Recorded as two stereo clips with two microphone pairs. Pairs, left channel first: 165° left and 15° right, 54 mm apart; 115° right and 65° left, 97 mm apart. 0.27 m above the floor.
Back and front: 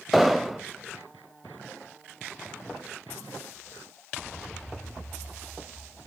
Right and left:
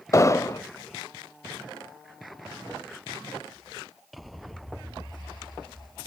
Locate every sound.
0.1 s an explosion: 105° right, 0.6 m